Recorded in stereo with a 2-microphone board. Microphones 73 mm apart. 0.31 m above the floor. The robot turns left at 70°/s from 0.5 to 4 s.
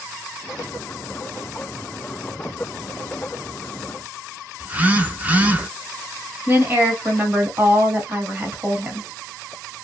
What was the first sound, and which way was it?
A phone buzzing, 20° right (ahead or behind).